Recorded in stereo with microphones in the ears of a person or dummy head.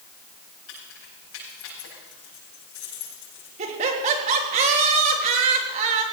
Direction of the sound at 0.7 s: 70° left (ahead or behind).